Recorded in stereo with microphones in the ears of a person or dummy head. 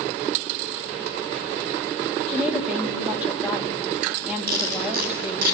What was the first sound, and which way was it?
A woman speaking, centre (ahead or behind).